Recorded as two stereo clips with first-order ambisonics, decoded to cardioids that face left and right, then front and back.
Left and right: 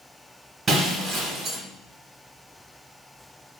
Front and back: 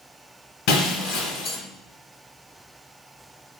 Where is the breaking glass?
20° right, 1.6 m.